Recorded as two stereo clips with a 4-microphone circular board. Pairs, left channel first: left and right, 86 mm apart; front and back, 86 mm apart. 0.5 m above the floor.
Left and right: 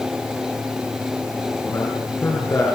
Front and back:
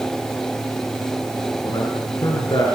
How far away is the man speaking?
About 7 m.